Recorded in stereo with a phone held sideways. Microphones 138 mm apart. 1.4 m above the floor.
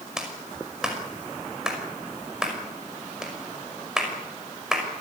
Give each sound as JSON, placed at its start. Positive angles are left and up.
{"t": 0.2, "sound": "a clap", "side_deg": -5, "distance_m": 5.5}